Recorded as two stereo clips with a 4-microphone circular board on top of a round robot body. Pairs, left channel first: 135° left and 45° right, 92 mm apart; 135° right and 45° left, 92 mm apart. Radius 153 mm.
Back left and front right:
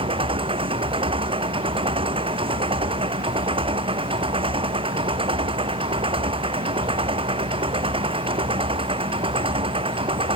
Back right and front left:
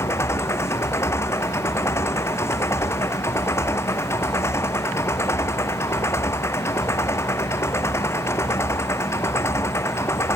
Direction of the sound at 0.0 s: 70° right.